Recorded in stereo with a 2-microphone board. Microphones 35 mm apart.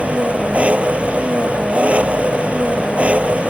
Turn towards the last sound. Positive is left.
turn(degrees=-35)  # may be behind; listen again after turning